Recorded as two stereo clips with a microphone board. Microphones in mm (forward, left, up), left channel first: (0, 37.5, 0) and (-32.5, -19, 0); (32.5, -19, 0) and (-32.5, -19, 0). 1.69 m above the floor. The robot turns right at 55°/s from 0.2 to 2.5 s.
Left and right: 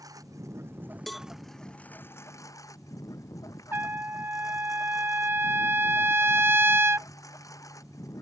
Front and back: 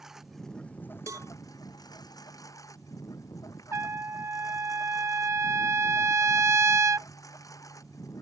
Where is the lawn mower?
95° right; by 8.2 s 30° left.